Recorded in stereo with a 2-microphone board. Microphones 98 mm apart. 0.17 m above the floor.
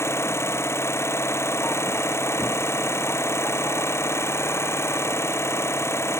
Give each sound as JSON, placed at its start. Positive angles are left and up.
{"t": 0.0, "sound": "an engine running", "side_deg": 25}